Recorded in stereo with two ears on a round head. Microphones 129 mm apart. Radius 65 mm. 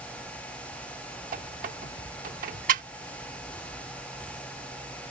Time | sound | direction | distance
1.3 | a squeak | 60° right (ahead or behind) | ?